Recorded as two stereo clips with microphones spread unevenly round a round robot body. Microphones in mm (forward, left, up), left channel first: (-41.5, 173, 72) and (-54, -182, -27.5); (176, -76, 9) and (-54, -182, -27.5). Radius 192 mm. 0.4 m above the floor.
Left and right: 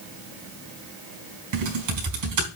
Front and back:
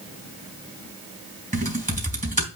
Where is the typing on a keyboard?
100° right, 3 m.